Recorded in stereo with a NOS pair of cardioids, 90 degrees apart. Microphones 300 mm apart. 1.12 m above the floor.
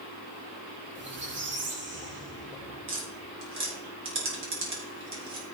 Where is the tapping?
45° right, 4.5 m.